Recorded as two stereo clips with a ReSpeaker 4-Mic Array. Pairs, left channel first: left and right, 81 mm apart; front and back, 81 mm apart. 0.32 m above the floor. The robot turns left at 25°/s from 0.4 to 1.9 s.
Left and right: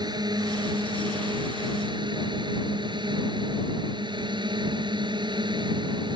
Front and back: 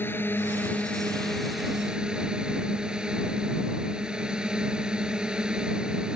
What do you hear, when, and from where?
0.0 s a drone: 65° right; by 6.2 s 100° right